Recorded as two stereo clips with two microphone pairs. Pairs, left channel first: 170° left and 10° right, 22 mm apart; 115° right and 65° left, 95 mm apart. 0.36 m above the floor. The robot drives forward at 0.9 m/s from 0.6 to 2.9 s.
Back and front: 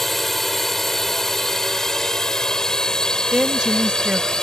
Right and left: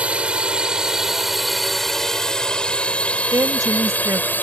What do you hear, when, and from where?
0.0 s a drone: 110° left; by 4.5 s 170° right
3.3 s a woman speaking: 20° left